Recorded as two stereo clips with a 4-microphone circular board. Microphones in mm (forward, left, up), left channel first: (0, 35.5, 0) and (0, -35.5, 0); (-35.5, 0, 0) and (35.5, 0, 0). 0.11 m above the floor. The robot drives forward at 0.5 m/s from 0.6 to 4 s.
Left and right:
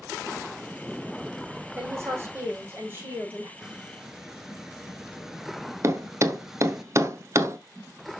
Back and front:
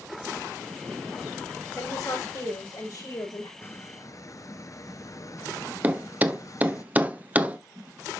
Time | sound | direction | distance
1.8 | a woman speaking | 145° right | 6 m
3.6 | a squeak | 165° right | 0.5 m
5.8 | a thud | 60° right | 0.9 m